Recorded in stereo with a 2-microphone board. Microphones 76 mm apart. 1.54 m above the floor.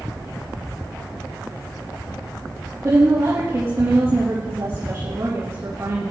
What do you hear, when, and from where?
2.8 s a woman speaking: 35° right (ahead or behind), 3 m